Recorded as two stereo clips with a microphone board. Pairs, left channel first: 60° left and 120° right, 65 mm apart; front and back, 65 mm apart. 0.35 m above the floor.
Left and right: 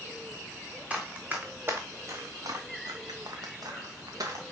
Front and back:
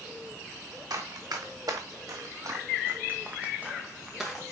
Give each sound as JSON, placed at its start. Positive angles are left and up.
{"t": 0.9, "sound": "running footsteps", "azimuth_deg": 170, "distance_m": 2.5}